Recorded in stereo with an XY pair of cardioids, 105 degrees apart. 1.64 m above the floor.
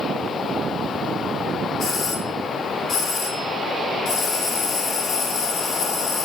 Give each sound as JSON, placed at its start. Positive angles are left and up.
{"t": 1.8, "sound": "a doorbell", "azimuth_deg": 65, "distance_m": 1.7}